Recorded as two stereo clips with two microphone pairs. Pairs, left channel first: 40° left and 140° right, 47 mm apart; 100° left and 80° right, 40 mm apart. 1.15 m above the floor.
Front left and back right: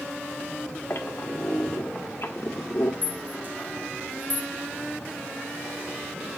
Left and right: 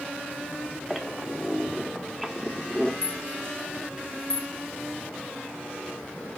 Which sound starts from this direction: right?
A rattle, at 3.0 s.